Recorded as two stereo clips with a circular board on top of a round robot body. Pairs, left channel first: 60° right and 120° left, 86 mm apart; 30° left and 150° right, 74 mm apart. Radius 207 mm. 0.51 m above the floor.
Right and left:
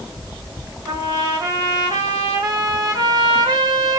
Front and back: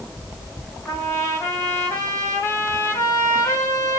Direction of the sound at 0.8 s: 80° left.